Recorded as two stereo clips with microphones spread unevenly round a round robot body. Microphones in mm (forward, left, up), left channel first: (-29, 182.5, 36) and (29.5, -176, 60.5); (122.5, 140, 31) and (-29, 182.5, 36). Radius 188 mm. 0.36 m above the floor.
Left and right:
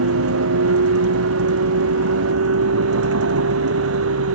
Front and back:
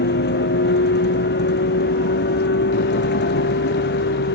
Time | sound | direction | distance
0.0 | a vehicle | 25° right | ?